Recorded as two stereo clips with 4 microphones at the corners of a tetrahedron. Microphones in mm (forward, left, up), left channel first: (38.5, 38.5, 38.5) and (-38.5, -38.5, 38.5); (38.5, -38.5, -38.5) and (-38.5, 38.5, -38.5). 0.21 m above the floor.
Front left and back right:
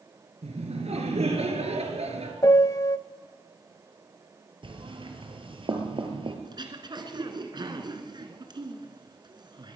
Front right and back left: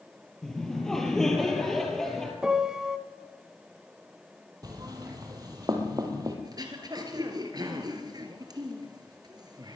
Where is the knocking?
170° right, 3.5 m.